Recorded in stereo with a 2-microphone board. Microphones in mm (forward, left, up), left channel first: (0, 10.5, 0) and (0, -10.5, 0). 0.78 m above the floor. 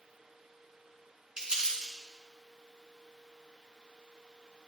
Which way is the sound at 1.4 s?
45° right (ahead or behind).